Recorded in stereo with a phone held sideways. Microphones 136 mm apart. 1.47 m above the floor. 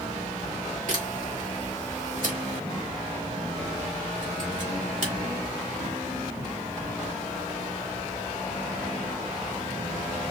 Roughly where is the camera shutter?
Right.